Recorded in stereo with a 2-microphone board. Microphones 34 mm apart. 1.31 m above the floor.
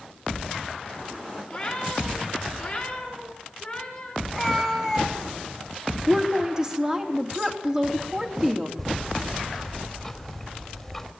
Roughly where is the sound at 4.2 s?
Centre.